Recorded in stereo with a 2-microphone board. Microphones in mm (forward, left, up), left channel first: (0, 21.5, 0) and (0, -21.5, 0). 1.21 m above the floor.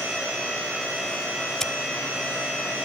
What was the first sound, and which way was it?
Scissors, 10° left (ahead or behind).